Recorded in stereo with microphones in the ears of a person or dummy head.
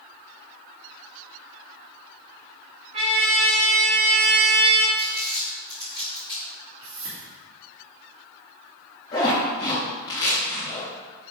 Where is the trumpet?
30° right (ahead or behind), 1.1 m.